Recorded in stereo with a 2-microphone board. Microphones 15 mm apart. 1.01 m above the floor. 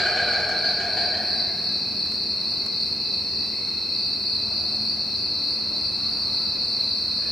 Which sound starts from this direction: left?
An insect, at 0.0 s.